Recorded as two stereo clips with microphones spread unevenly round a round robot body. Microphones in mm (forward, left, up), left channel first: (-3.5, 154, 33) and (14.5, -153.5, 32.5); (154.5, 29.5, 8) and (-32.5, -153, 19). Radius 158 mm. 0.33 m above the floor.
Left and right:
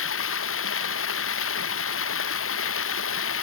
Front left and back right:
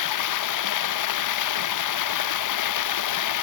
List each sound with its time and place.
0.0 s running water: 40° left